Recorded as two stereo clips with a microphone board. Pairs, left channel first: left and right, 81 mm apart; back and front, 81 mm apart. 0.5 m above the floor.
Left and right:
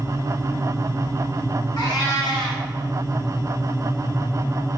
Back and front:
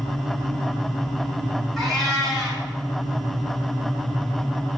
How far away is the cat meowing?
About 1.3 m.